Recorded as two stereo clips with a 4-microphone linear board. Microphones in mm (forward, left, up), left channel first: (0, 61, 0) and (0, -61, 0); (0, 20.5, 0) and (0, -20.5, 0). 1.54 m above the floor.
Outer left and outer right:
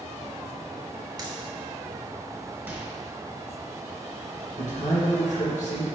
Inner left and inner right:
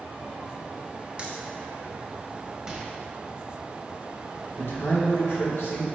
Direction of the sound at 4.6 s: 75° left (ahead or behind).